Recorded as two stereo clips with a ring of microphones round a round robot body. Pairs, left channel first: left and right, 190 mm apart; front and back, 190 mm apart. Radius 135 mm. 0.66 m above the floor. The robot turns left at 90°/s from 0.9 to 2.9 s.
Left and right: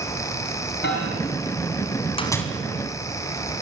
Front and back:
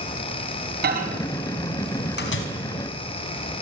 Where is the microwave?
145° left, 4.5 m; by 2.4 s 5° left, 4.5 m.